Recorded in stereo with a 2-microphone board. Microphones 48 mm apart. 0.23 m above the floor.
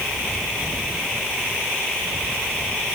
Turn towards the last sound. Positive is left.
No sound to turn to.